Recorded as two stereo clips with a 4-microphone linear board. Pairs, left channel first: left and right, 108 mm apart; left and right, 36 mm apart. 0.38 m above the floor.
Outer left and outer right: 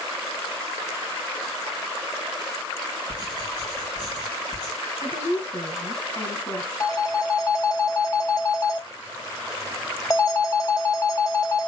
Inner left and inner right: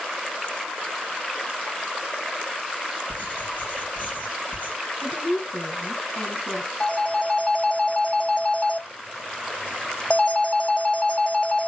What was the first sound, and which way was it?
Writing, 45° left (ahead or behind).